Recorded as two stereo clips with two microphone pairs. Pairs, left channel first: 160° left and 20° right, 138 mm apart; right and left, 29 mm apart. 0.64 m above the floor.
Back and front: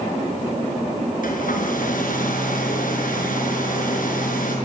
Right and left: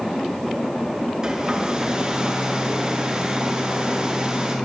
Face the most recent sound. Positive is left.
turn(degrees=155)